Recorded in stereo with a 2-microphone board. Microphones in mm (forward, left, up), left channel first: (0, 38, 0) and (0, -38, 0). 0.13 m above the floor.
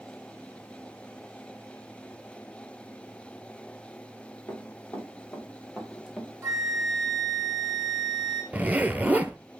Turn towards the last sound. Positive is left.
turn(degrees=-20)  # may be behind; listen again after turning